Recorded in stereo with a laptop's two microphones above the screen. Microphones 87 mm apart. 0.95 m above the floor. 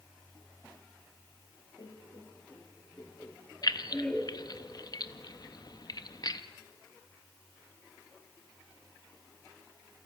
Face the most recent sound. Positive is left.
turn(degrees=50)  # may be behind; listen again after turning